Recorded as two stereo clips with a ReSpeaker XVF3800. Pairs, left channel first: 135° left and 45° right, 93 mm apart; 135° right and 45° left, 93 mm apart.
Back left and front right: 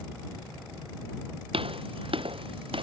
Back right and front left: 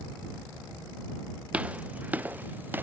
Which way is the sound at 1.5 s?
30° right.